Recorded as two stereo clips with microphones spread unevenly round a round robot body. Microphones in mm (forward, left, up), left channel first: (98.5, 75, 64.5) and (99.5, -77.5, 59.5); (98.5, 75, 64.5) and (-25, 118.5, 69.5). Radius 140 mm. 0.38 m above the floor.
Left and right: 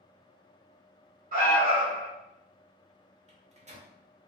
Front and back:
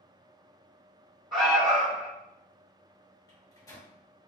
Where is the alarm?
115° right, 1.6 m.